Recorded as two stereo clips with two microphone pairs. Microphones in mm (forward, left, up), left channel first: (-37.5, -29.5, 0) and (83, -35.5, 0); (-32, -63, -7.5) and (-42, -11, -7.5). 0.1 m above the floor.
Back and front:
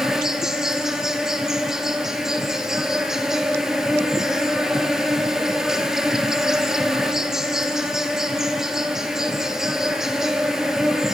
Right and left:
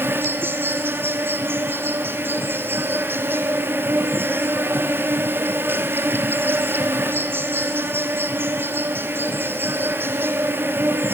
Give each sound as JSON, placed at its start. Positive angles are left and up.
{"t": 0.0, "sound": "an insect", "azimuth_deg": 80, "distance_m": 1.9}